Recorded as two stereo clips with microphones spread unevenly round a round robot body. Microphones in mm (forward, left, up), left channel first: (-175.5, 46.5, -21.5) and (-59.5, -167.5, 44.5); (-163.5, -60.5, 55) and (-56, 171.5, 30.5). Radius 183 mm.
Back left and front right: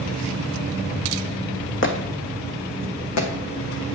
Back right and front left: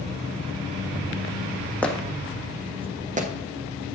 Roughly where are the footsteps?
Behind.